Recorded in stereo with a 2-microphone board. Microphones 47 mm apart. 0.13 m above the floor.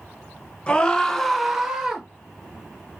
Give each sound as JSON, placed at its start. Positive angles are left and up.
{"t": 0.7, "sound": "a scream", "side_deg": 20, "distance_m": 1.4}